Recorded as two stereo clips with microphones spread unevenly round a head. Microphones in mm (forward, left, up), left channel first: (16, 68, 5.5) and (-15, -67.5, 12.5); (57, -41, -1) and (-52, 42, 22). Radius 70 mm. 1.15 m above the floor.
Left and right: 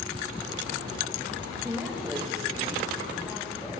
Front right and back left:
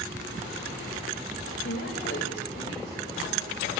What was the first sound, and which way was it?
A woman speaking, 25° right.